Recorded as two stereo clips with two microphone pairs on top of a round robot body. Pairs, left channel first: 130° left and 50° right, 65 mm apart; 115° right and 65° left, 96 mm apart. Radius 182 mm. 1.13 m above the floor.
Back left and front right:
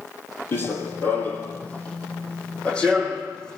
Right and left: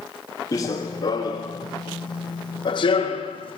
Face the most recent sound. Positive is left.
turn(degrees=-150)